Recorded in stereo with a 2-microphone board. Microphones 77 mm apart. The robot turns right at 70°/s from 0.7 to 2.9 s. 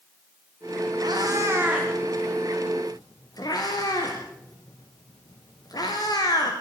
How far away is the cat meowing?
About 5 m.